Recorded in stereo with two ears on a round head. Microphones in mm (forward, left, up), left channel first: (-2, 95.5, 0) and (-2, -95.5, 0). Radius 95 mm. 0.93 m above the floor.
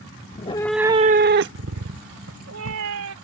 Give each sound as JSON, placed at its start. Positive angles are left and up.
{"t": 0.3, "sound": "a cat meowing", "side_deg": 35}